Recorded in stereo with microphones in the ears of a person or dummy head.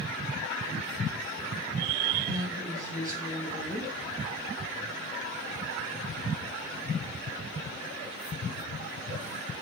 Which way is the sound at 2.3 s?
15° right (ahead or behind).